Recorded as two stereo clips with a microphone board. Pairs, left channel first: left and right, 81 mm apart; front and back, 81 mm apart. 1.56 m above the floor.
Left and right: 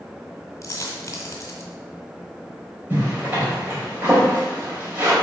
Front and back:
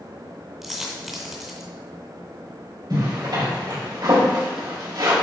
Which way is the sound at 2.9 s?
155° right.